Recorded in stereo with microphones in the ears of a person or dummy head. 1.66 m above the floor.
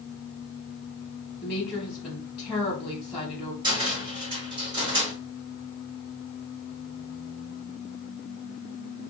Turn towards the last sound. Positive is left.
turn(degrees=-20)  # may be behind; listen again after turning